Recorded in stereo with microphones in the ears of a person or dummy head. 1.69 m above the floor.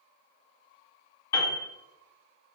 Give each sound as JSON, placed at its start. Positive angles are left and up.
{"t": 1.3, "sound": "a piano", "side_deg": 15, "distance_m": 2.5}